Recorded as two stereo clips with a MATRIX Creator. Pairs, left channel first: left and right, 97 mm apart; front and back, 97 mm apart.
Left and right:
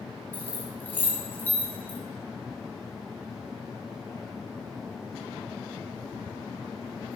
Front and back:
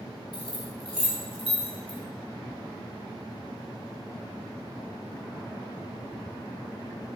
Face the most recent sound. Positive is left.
turn(degrees=20)